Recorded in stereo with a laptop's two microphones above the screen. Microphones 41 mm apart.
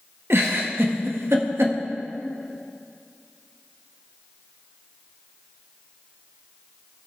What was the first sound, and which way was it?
A giggle, 75° right (ahead or behind).